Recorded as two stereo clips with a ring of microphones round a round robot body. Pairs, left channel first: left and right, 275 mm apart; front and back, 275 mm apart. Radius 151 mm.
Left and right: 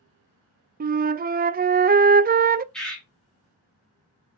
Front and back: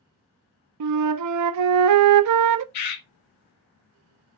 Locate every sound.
0.8 s a flute: 150° right, 0.5 m
2.7 s a bird: 5° left, 1.7 m